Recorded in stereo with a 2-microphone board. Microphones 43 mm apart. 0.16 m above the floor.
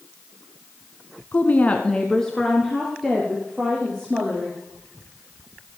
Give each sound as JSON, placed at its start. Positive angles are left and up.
{"t": 1.3, "sound": "a woman speaking", "side_deg": 40, "distance_m": 1.3}